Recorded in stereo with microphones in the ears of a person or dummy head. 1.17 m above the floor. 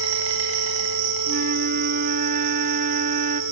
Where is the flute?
45° right (ahead or behind), 1.6 m.